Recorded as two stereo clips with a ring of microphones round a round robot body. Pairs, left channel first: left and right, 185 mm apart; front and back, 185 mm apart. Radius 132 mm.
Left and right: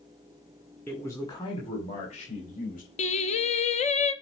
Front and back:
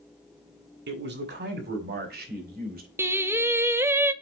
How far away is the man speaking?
About 1.7 m.